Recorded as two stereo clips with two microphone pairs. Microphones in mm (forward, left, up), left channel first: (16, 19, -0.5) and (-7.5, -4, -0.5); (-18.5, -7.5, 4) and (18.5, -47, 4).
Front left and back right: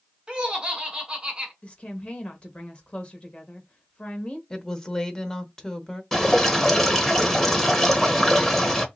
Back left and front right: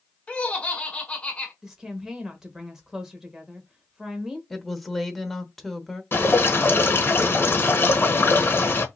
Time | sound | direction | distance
0.3 | laughter | straight behind | 1.4 m
1.6 | a woman speaking | 30° left | 1.1 m
4.5 | a woman speaking | 50° left | 0.8 m
6.1 | dripping | 120° left | 0.9 m